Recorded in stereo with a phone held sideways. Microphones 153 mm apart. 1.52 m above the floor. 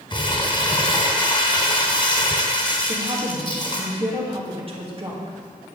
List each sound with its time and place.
0.1 s crumpling: 30° left (ahead or behind), 2 m
2.9 s a woman speaking: 40° right (ahead or behind), 2 m